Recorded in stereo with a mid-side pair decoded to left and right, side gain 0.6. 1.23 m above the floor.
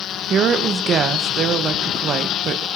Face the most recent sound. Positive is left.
turn(degrees=-50)